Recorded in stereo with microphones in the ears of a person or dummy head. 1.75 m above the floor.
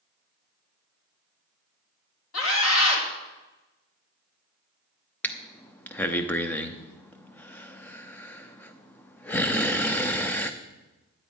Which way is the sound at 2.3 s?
80° left.